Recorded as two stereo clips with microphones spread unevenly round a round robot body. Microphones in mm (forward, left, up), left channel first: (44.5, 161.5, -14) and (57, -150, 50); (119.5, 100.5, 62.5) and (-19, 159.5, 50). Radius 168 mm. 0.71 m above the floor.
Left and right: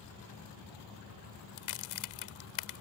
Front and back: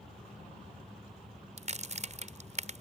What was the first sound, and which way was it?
A crack, 120° left.